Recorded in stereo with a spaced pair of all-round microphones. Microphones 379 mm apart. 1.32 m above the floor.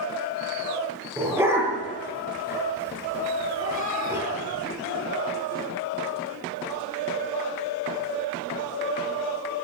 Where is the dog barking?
5° right (ahead or behind), 10 m.